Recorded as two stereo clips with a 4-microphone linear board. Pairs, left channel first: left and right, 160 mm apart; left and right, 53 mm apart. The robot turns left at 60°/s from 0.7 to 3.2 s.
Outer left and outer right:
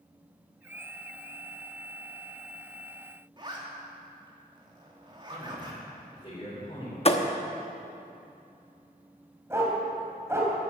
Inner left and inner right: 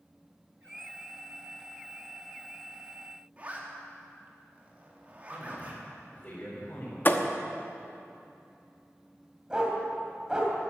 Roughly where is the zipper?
Right.